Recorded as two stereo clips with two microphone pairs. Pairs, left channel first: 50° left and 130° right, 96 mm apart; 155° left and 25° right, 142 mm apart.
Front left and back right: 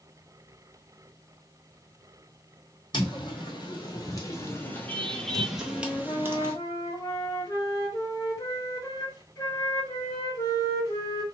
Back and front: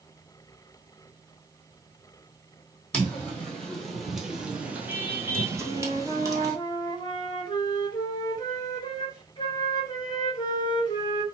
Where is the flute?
95° left, 1.4 m.